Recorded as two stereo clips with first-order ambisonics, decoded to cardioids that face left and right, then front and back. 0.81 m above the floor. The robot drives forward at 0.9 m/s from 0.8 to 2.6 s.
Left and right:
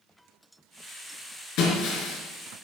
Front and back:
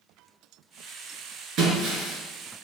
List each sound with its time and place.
1.6 s breaking glass: 130° left, 4 m; by 2.2 s 135° left, 4.5 m